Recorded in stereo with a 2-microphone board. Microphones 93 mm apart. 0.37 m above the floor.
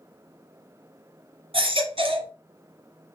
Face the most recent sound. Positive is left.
turn(degrees=-80)